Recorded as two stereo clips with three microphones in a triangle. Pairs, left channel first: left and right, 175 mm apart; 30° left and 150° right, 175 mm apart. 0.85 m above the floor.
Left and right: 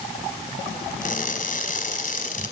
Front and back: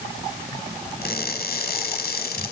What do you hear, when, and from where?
1.0 s crushing: 55° left, 5 m